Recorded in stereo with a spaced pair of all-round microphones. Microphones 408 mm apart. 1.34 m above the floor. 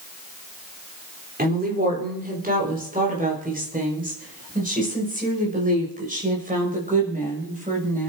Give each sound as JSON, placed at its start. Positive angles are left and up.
{"t": 1.4, "sound": "a woman speaking", "side_deg": -20, "distance_m": 4.0}